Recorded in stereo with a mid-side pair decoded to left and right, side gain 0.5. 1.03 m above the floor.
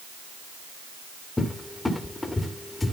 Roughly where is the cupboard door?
Ahead.